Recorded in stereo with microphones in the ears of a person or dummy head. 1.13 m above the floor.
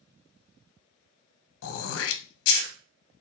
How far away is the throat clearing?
About 0.5 m.